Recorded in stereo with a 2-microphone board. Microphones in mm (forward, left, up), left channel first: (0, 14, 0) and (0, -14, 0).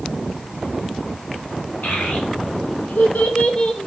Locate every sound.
1.8 s a child speaking: 85° left, 1.6 m; by 3.9 s 35° left (ahead or behind), 0.9 m